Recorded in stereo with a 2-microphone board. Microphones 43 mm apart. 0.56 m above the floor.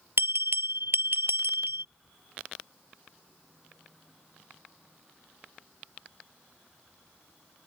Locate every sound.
0.2 s a bell: 70° right (ahead or behind)